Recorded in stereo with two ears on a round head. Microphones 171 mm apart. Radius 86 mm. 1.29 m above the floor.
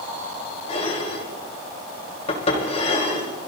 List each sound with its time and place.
0.7 s dishes clattering: 35° left (ahead or behind), 4 m